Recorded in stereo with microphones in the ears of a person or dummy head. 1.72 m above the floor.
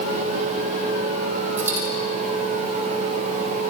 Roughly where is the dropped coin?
Centre.